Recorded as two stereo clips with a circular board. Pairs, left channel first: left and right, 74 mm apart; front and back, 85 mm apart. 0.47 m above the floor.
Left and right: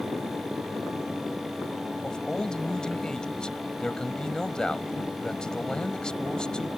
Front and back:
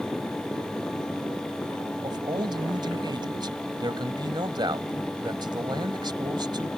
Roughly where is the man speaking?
Behind.